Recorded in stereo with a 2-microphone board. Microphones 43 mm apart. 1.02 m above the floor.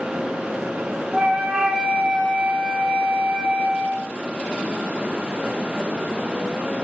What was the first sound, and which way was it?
A flute, 20° right (ahead or behind).